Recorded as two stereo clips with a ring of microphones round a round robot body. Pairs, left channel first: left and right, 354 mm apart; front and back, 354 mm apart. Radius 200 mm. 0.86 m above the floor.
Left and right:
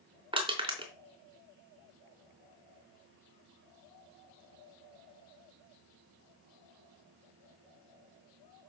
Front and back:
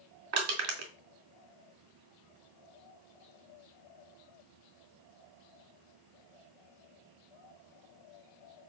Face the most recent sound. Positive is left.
turn(degrees=-165)